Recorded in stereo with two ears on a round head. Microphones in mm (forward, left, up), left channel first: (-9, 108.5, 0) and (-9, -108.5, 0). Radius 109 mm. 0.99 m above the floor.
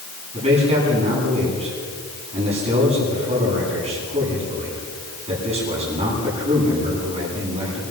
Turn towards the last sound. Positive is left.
turn(degrees=-25)  # may be behind; listen again after turning